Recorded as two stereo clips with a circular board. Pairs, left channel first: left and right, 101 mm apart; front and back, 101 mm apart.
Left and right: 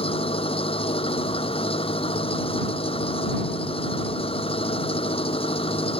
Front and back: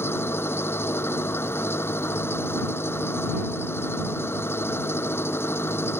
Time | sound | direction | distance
0.0 | an engine running | 65° left | ?